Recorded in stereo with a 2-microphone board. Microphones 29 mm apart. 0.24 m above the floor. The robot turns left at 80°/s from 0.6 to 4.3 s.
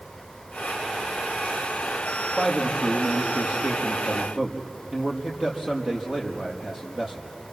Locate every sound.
2.4 s a man speaking: 15° left, 5.5 m; by 7.3 s 140° right, 5.5 m